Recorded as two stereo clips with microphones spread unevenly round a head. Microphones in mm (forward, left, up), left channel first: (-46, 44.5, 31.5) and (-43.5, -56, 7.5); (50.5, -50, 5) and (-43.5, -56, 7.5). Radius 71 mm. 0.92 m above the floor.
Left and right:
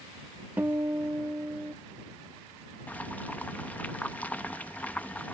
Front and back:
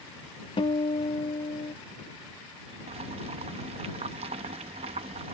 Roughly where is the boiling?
Behind.